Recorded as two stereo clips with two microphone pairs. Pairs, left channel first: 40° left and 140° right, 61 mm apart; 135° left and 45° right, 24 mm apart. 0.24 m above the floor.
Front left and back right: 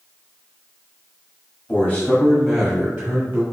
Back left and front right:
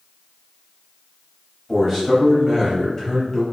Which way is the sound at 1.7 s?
40° left.